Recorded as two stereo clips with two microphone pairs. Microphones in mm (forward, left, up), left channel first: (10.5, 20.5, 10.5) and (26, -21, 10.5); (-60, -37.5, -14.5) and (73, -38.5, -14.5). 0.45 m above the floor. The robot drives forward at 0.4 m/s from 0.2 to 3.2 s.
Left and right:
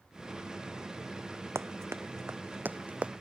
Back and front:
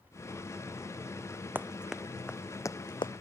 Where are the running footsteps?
75° right; by 3.1 s 130° right.